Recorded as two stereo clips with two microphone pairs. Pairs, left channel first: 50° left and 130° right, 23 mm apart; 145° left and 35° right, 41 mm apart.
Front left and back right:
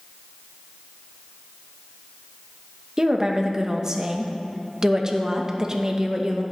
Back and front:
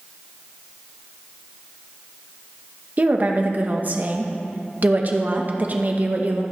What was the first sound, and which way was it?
A woman speaking, 70° right.